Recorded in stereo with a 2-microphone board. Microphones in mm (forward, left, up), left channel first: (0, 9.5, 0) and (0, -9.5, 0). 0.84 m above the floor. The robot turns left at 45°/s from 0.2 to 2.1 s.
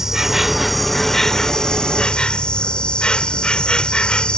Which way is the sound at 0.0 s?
155° right.